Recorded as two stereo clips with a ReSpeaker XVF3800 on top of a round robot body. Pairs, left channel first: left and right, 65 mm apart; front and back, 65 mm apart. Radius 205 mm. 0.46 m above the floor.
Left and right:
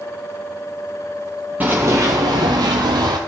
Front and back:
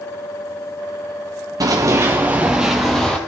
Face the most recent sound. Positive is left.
turn(degrees=-80)